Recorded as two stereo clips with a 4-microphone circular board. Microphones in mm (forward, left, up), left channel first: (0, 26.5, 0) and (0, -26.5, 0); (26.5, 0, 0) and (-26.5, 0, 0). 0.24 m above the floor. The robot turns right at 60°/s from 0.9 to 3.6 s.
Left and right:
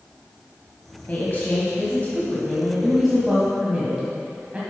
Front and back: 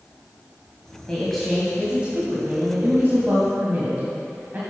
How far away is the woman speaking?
About 1.3 m.